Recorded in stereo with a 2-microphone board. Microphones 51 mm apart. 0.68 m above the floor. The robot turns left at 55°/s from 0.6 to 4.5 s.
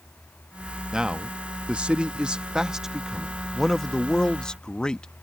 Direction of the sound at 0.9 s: 15° right (ahead or behind).